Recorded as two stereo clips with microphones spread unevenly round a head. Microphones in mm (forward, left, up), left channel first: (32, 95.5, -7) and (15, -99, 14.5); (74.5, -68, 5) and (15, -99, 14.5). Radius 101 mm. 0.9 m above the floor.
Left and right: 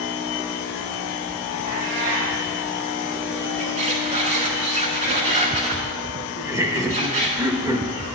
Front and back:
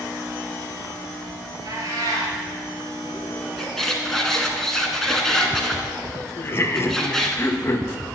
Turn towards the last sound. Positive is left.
turn(degrees=-20)